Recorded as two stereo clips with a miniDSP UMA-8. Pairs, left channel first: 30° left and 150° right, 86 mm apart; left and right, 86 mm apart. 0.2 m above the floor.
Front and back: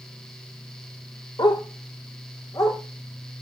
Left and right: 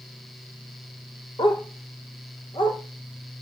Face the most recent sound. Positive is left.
turn(degrees=75)